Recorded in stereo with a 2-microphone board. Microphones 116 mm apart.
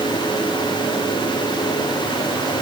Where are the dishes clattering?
No dishes clattering in this recording.